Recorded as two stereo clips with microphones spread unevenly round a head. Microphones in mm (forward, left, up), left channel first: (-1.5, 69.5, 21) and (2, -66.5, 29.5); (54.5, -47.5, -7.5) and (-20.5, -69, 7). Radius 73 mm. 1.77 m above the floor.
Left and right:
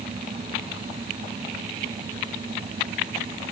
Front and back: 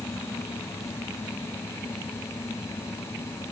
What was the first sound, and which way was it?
Only background noise.